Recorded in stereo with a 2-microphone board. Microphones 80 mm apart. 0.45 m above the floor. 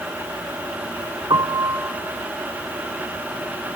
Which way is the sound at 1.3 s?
60° right (ahead or behind).